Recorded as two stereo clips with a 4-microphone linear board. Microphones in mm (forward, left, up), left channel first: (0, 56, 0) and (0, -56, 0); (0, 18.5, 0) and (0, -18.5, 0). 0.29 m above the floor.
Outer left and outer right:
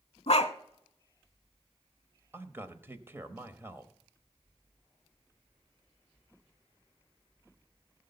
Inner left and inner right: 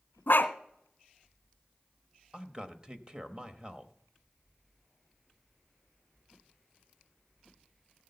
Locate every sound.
0.3 s a dog barking: 65° left (ahead or behind), 0.8 m
2.3 s a man speaking: 20° right (ahead or behind), 0.9 m